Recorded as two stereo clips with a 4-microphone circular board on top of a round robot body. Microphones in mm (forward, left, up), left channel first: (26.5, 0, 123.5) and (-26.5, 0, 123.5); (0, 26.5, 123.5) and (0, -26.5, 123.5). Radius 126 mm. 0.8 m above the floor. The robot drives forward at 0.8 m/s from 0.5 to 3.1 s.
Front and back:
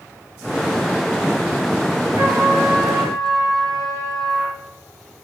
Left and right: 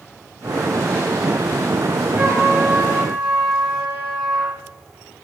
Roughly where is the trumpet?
Behind right.